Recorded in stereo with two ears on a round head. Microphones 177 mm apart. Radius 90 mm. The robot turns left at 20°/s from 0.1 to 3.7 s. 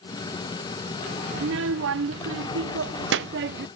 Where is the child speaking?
70° right; by 3.7 s 120° right.